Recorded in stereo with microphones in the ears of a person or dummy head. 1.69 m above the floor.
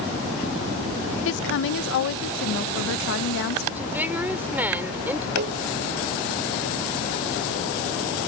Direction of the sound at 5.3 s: 60° right (ahead or behind).